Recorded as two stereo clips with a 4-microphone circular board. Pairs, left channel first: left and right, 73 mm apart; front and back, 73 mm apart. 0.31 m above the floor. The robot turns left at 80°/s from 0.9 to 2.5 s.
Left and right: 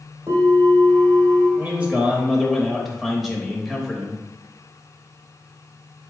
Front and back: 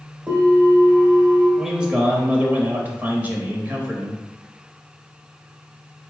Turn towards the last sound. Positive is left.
turn(degrees=180)